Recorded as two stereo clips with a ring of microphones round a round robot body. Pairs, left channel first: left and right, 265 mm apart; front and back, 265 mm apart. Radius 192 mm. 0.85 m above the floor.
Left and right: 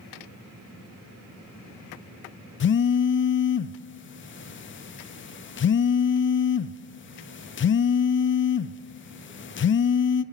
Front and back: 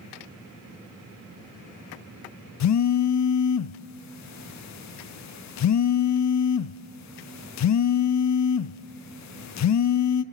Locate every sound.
2.6 s a phone buzzing: 35° left, 0.6 m